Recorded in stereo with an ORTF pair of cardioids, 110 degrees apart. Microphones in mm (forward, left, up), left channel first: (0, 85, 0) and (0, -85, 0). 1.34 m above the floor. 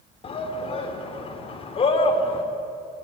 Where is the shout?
35° left, 3.5 m.